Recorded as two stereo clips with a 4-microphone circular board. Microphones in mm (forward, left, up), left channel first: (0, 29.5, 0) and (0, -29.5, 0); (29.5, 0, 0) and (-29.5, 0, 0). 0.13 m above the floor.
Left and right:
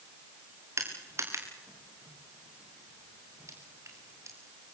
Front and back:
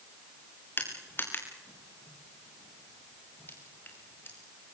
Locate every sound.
0.8 s crushing: 50° right, 5.5 m